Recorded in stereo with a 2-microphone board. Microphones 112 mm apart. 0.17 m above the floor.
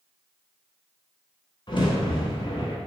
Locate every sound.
1.7 s a crack: 45° left (ahead or behind), 1.0 m